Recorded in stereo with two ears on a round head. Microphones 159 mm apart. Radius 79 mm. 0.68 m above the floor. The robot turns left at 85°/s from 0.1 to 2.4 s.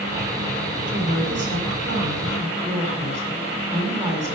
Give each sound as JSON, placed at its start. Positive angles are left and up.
{"t": 0.9, "sound": "a woman speaking", "azimuth_deg": -30, "distance_m": 7.0}